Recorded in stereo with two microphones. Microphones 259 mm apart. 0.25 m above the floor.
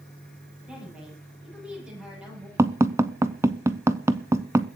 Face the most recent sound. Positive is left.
turn(degrees=-10)  # may be behind; listen again after turning